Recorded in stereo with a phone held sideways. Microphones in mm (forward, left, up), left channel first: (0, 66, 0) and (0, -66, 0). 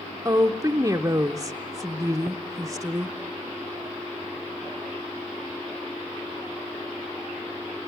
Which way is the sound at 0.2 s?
25° right (ahead or behind).